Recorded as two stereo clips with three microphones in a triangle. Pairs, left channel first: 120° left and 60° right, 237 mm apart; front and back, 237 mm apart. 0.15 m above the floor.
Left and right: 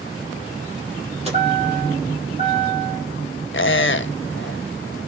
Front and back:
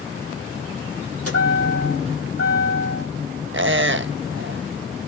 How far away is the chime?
About 7 m.